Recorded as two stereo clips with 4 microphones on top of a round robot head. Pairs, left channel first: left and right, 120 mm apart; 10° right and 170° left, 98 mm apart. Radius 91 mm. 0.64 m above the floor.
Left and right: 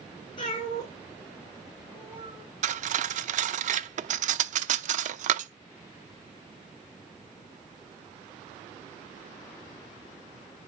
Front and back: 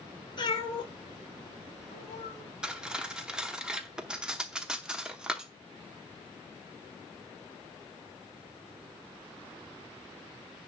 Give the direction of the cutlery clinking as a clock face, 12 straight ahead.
4 o'clock.